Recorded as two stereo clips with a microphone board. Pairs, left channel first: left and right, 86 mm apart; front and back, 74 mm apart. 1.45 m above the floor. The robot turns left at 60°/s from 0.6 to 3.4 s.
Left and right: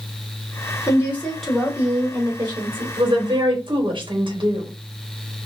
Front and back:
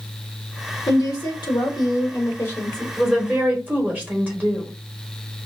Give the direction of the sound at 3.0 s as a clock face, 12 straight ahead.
3 o'clock.